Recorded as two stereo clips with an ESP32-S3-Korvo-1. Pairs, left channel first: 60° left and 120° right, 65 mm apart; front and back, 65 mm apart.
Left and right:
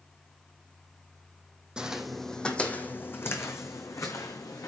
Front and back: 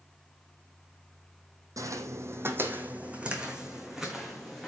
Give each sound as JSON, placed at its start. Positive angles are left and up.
{"t": 1.8, "sound": "footsteps", "azimuth_deg": 165, "distance_m": 1.0}